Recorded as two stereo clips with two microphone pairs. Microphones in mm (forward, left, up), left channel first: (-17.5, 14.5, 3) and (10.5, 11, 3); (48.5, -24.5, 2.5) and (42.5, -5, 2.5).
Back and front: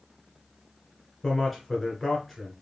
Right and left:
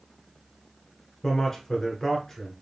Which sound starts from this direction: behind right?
A man speaking, at 1.2 s.